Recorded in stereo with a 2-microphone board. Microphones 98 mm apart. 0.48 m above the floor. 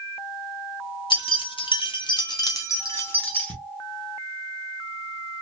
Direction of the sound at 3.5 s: 45° left (ahead or behind).